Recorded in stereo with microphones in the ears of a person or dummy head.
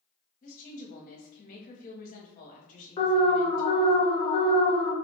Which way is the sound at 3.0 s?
30° left (ahead or behind).